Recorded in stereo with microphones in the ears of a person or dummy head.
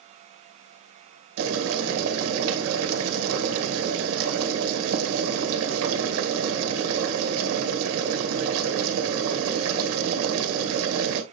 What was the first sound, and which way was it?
Boiling, 75° right (ahead or behind).